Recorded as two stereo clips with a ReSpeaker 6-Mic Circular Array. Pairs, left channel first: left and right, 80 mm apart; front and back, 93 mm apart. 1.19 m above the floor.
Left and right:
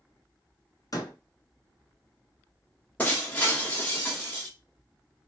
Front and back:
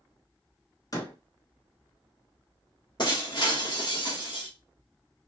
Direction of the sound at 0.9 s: 50° left.